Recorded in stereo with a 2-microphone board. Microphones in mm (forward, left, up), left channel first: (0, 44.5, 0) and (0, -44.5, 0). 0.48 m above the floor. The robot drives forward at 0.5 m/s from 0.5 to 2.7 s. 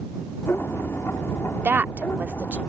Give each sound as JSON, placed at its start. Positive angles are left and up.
{"t": 1.6, "sound": "a woman speaking", "side_deg": -20}